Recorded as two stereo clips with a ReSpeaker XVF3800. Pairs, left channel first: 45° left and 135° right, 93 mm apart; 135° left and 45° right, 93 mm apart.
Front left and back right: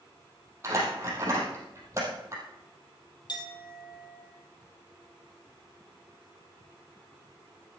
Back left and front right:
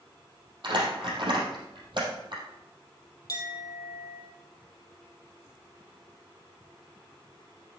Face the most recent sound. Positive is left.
turn(degrees=85)